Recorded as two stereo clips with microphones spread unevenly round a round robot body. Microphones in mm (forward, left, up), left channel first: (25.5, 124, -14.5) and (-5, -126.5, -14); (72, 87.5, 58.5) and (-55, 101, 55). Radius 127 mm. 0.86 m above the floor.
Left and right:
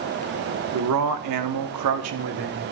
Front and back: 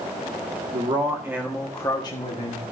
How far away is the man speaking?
About 1.8 m.